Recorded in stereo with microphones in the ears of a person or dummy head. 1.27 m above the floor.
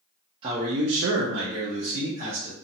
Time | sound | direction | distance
0.4 | a man speaking | 25° right (ahead or behind) | 0.6 m